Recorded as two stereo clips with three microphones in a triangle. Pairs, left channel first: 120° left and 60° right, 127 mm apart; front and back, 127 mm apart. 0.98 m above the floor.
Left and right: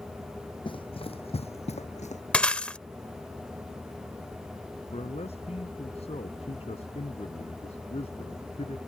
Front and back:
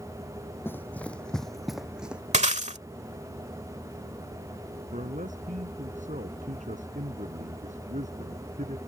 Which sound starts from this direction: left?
Running footsteps, at 0.7 s.